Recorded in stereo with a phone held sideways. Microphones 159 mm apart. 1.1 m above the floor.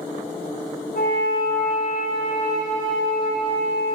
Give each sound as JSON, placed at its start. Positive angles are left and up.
{"t": 0.9, "sound": "a flute", "side_deg": 85, "distance_m": 7.0}